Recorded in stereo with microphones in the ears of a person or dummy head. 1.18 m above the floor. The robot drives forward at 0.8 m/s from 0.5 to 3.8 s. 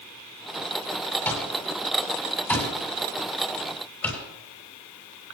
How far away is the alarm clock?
About 7.5 m.